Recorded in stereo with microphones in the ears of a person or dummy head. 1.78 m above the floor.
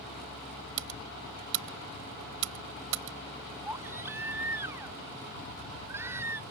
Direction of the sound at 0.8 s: 70° right (ahead or behind).